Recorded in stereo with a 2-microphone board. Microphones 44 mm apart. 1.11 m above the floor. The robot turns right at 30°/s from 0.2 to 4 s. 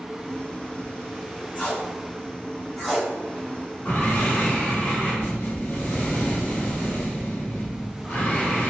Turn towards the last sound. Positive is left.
turn(degrees=50)  # may be behind; listen again after turning